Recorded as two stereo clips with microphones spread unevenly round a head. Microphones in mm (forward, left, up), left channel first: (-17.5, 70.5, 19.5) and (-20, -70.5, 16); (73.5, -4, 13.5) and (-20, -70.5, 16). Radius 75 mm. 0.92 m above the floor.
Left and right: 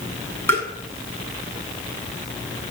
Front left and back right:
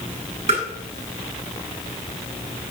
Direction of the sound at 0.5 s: 165° left.